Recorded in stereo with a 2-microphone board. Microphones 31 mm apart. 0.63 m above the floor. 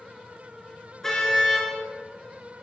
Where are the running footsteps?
I don't hear running footsteps.